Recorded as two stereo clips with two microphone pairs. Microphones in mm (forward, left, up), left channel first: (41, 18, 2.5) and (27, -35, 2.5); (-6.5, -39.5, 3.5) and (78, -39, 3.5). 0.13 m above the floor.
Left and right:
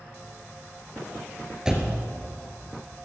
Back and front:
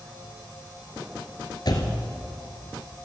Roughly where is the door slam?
Behind.